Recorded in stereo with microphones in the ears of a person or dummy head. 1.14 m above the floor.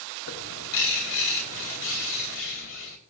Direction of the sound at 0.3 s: 70° left (ahead or behind).